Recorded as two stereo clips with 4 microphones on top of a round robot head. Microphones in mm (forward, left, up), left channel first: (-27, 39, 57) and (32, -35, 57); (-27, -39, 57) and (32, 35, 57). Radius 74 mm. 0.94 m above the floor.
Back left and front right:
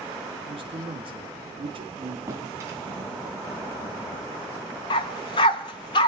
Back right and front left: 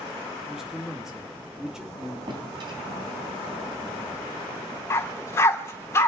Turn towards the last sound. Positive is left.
turn(degrees=165)